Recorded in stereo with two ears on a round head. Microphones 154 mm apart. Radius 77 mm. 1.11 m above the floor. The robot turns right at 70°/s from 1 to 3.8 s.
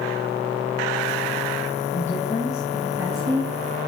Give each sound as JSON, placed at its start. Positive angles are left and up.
{"t": 1.9, "sound": "a woman speaking", "azimuth_deg": 120, "distance_m": 1.4}